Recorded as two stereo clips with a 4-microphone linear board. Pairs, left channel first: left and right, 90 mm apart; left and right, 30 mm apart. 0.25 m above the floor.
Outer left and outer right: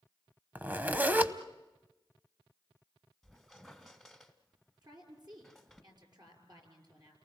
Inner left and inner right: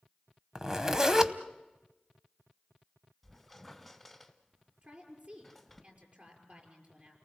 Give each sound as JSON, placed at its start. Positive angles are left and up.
{"t": 0.6, "sound": "a zipper", "side_deg": -20, "distance_m": 0.8}
{"t": 3.2, "sound": "a squeak", "side_deg": 0, "distance_m": 1.5}
{"t": 4.8, "sound": "a woman speaking", "side_deg": -50, "distance_m": 6.0}